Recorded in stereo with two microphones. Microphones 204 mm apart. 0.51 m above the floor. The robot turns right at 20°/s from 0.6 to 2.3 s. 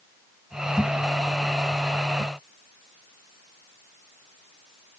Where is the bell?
No bell in this recording.